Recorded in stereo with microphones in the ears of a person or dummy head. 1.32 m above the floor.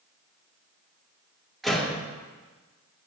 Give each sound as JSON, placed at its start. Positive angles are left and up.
{"t": 1.6, "sound": "a door slam", "side_deg": 5, "distance_m": 2.0}